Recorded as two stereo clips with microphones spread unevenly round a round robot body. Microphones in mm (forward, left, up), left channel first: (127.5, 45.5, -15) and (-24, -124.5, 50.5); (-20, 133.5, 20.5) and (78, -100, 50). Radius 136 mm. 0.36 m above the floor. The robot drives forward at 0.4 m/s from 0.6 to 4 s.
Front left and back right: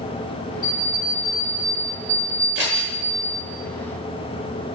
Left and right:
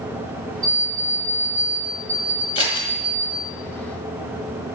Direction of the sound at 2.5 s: 175° left.